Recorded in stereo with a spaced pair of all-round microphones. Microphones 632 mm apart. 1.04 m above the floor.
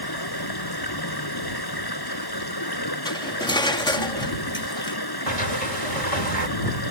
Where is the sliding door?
85° right.